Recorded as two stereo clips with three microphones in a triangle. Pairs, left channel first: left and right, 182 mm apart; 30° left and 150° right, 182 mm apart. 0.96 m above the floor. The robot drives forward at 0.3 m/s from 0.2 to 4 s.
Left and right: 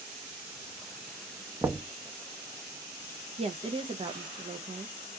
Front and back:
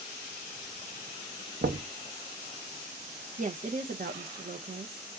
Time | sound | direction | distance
1.6 | knocking | 170° right | 0.5 m
3.4 | a woman speaking | 130° right | 0.5 m